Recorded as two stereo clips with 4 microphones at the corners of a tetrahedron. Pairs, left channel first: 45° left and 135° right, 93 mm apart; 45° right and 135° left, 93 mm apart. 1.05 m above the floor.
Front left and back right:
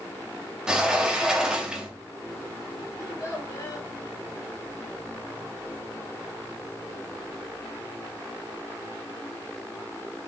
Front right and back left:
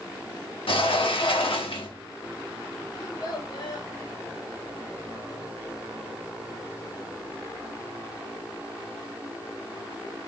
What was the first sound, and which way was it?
A sliding door, 55° right.